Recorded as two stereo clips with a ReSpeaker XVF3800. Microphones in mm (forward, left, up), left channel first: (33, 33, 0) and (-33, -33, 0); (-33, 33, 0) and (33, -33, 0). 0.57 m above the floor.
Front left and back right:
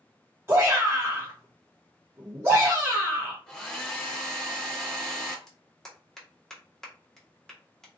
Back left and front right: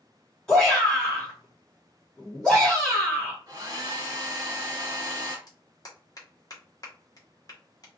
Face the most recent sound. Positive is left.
turn(degrees=125)